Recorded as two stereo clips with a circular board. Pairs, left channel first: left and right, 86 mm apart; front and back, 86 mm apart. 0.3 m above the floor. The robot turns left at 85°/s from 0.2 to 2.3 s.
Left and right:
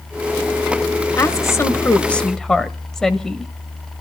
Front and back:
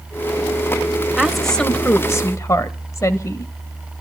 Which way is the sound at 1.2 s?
110° left.